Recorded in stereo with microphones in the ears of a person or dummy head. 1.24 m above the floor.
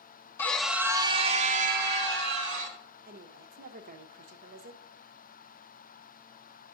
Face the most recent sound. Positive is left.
turn(degrees=-50)  # may be behind; listen again after turning